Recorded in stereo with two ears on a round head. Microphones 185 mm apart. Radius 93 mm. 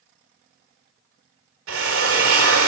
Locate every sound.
1.7 s a drill: 70° right (ahead or behind), 1.9 m